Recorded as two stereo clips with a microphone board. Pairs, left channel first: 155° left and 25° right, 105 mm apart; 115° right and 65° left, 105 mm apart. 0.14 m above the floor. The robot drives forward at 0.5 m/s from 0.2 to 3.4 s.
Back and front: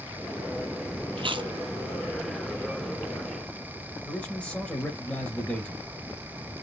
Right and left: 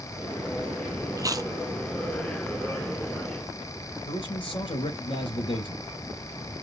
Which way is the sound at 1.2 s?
10° left.